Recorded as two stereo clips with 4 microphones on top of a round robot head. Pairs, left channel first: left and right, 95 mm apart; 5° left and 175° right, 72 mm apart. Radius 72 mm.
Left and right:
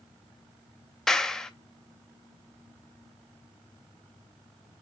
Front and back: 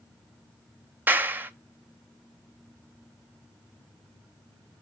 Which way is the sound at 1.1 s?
170° left.